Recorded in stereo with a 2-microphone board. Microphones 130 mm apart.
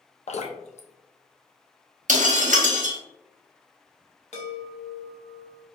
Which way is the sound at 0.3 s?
55° left (ahead or behind).